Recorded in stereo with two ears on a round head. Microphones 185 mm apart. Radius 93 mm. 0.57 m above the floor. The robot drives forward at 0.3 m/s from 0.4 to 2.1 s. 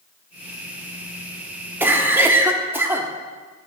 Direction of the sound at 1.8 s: 10° right (ahead or behind).